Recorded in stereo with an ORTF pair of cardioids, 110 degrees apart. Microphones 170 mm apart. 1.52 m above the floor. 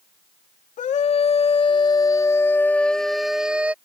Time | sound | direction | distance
0.8 | a scream | 45° left | ?